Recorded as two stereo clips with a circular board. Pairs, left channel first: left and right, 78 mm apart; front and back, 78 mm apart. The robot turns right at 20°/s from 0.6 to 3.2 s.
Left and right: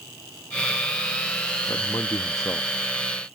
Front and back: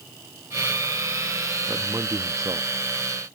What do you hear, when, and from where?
1.7 s a man speaking: 125° left; by 3.4 s 155° left